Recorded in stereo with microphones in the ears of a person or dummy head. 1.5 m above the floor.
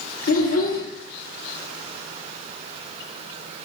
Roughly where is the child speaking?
Left.